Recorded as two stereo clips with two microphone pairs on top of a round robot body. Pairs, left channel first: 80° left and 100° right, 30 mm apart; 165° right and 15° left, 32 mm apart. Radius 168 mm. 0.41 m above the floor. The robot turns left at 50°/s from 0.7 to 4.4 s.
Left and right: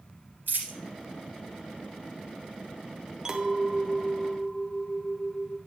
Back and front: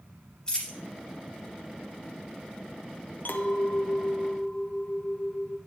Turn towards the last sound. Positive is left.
turn(degrees=135)